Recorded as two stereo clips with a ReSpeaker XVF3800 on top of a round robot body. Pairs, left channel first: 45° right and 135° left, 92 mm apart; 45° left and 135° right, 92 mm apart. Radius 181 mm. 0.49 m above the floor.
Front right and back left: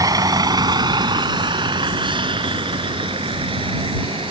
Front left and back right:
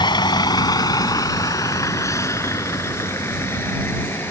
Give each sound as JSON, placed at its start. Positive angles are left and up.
{"t": 0.0, "sound": "a vehicle", "azimuth_deg": 85}